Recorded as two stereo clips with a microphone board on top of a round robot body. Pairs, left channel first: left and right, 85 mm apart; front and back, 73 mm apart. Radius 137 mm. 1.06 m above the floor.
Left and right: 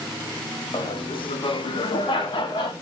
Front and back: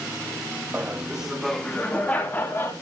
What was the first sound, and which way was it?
Laughter, 115° left.